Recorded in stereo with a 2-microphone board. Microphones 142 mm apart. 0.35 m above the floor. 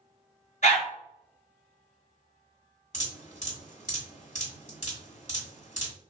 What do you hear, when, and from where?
0.6 s a dog barking: 65° left (ahead or behind), 1.4 m
2.9 s dripping: 60° left (ahead or behind), 1.3 m